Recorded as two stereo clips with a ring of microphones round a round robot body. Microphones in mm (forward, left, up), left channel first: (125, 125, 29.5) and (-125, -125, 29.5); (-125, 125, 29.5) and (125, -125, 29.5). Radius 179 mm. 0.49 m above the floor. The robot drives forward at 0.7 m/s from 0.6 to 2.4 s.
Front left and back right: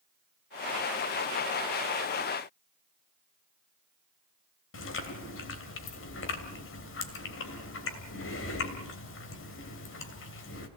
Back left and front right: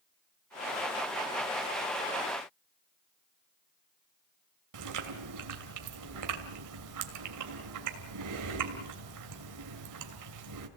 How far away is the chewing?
About 2.5 m.